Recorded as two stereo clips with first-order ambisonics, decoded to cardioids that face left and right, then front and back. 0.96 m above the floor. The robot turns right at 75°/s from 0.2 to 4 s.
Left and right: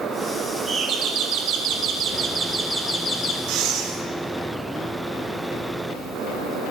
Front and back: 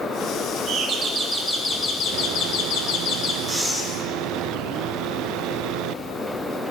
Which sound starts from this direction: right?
Breathing, at 3.5 s.